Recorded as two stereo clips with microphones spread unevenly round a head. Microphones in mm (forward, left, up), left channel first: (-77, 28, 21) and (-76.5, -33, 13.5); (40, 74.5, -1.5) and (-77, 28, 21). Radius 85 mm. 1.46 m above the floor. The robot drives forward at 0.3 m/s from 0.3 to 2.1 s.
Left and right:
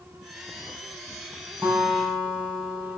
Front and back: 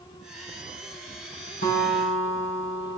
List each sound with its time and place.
1.6 s a guitar: 10° right, 3.5 m